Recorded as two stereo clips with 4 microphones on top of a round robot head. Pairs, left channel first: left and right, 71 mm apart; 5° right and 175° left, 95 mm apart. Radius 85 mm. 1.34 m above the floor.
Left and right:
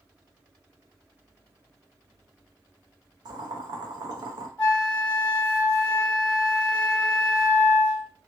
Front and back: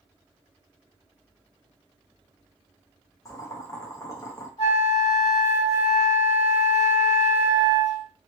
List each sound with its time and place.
3.2 s boiling: 65° right, 0.7 m
4.6 s a flute: 15° left, 1.7 m